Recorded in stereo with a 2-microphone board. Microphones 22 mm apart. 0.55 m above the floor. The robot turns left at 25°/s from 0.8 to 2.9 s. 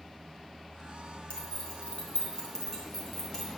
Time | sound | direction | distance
1.3 | keys jangling | 55° left (ahead or behind) | 2.5 m